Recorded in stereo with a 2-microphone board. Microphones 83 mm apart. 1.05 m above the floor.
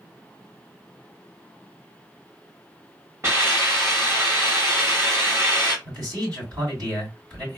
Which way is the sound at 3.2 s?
35° right (ahead or behind).